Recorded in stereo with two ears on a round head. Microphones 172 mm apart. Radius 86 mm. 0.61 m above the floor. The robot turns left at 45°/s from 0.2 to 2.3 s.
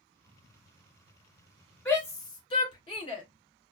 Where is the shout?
10° left (ahead or behind), 2.5 m; by 3.2 s 25° left (ahead or behind), 2.5 m.